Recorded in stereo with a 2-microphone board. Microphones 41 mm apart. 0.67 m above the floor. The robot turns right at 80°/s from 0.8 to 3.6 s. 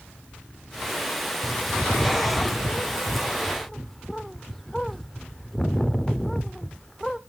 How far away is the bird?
About 0.6 m.